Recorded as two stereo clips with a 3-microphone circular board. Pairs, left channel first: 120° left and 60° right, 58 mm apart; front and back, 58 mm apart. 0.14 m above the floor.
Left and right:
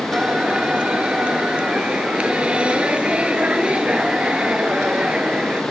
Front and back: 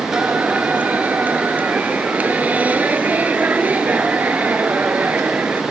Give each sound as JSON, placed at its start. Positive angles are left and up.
{"t": 0.1, "sound": "singing", "azimuth_deg": -125}